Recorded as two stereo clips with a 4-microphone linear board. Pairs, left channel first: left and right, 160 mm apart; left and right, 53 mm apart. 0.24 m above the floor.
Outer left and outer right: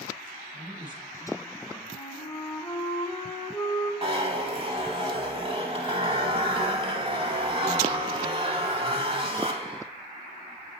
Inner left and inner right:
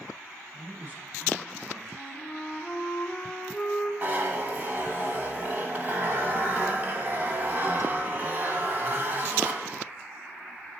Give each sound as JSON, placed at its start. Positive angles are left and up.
{"t": 0.5, "sound": "a man speaking", "side_deg": -35, "distance_m": 2.0}
{"t": 1.9, "sound": "a flute", "side_deg": 10, "distance_m": 1.0}
{"t": 4.0, "sound": "a zipper", "side_deg": -35, "distance_m": 1.0}